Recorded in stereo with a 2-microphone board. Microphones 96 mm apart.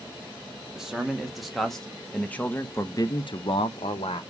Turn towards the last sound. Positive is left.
turn(degrees=75)  # may be behind; listen again after turning